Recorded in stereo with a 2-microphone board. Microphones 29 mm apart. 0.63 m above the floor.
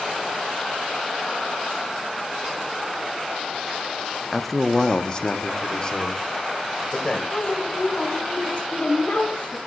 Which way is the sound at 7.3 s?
55° left (ahead or behind).